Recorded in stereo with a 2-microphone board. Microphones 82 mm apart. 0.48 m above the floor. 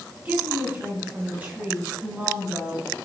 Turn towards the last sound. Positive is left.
turn(degrees=-15)  # may be behind; listen again after turning